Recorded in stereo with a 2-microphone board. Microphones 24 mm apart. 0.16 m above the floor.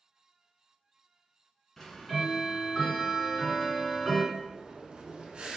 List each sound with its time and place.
1.8 s ticking: 15° left (ahead or behind), 1.5 m
4.3 s breathing: 45° right (ahead or behind), 0.8 m